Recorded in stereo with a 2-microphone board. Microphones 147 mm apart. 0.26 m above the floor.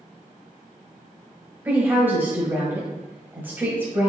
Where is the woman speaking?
15° right (ahead or behind), 1.3 m.